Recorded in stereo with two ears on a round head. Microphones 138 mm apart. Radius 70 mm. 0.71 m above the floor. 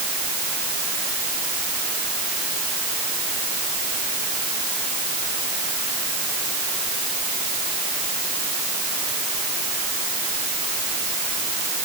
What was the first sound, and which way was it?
Only background noise.